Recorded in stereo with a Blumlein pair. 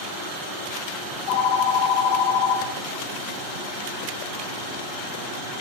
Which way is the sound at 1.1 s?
40° left.